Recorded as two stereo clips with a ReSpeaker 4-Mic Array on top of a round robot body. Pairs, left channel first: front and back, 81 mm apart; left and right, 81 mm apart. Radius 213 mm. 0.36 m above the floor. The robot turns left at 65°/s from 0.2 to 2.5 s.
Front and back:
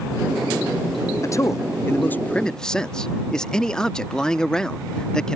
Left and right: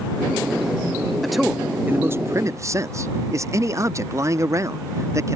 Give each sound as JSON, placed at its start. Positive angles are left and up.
{"t": 1.2, "sound": "a man speaking", "azimuth_deg": 5}